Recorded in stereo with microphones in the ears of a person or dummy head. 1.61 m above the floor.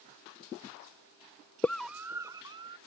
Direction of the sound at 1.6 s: 15° left (ahead or behind).